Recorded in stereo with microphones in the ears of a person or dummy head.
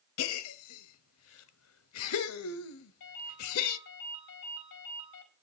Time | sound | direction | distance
0.2 | a gasp | 80° left | 1.0 m
3.0 | a ringtone | 65° left (ahead or behind) | 4 m